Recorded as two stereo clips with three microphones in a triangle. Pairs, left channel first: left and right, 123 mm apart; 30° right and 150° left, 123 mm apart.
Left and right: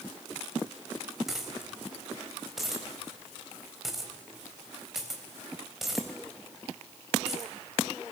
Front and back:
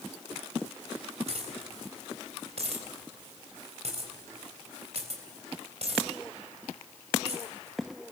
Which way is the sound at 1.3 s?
Straight behind.